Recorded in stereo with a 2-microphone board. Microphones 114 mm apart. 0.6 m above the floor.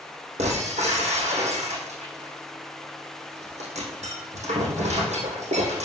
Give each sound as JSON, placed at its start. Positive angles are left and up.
{"t": 0.4, "sound": "breaking glass", "side_deg": -80, "distance_m": 4.0}